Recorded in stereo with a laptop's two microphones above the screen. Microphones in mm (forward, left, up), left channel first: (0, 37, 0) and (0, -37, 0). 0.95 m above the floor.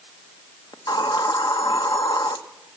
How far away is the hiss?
About 1.0 m.